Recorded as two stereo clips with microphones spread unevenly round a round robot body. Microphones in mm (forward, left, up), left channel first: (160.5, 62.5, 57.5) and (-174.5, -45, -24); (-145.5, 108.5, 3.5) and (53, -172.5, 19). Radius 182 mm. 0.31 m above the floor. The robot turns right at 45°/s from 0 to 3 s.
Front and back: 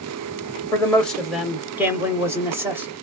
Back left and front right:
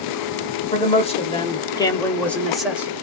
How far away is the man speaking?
About 0.9 m.